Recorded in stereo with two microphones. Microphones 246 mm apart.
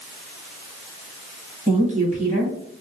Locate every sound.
1.7 s a woman speaking: 30° right (ahead or behind), 2 m